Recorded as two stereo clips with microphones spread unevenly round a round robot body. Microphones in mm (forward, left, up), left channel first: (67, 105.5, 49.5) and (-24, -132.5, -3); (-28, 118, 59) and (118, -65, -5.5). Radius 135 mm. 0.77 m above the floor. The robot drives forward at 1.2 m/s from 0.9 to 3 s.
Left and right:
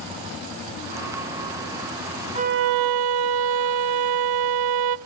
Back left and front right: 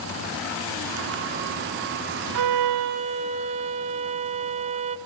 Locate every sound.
2.4 s a violin: 40° right, 0.7 m; by 5.0 s 125° right, 0.5 m